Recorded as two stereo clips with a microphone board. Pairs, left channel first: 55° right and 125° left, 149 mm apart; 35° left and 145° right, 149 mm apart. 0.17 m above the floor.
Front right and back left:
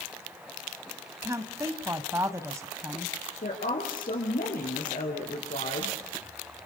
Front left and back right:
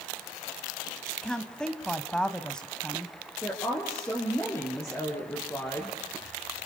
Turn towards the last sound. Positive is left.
turn(degrees=-40)